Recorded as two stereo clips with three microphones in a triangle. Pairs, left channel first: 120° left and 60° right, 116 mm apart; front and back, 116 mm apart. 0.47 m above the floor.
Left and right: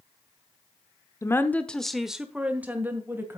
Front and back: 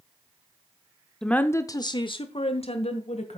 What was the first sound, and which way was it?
A woman speaking, 80° left.